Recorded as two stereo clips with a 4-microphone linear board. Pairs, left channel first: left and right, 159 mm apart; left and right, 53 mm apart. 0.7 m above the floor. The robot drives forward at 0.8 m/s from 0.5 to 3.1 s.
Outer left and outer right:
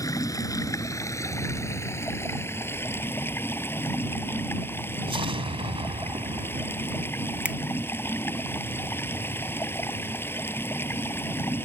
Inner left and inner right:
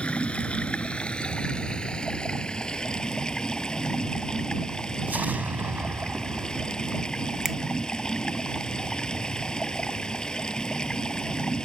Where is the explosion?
35° right (ahead or behind).